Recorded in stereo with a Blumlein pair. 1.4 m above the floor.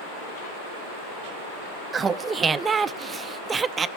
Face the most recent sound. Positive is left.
turn(degrees=-15)